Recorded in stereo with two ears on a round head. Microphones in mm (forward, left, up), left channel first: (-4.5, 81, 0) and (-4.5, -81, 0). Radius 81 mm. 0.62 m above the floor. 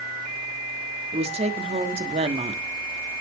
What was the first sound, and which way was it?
A woman speaking, 35° right (ahead or behind).